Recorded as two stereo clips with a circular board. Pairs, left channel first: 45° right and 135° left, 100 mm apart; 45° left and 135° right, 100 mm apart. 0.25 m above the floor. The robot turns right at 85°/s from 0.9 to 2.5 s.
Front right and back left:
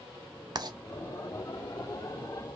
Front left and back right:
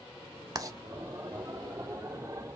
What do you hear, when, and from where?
0.6 s writing: 175° left, 0.5 m